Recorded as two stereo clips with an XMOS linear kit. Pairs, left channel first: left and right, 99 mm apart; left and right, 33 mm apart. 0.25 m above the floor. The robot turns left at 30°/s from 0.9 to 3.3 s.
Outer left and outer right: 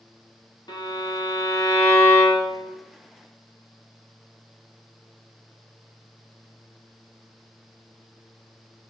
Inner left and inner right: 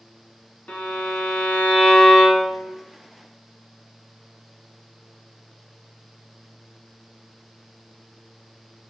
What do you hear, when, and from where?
0.7 s a violin: 75° left, 1.1 m; by 2.7 s 20° left, 1.1 m